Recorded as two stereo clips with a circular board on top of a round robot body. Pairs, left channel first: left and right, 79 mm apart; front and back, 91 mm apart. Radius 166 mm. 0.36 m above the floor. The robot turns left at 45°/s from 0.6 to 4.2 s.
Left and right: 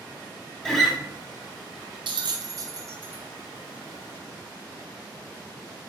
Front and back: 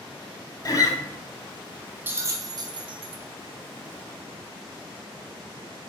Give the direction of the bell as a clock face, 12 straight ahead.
4 o'clock.